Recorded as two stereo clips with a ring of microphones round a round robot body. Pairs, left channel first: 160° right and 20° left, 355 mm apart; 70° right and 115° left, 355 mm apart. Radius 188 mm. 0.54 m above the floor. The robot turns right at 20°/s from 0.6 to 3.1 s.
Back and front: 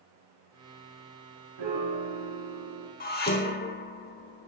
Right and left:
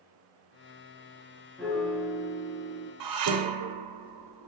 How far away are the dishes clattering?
About 1.8 m.